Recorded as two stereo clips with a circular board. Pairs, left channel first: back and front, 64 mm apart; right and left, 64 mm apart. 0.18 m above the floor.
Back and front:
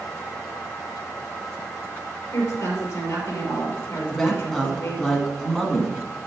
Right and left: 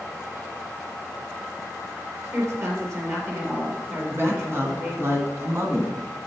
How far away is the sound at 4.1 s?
About 1.7 m.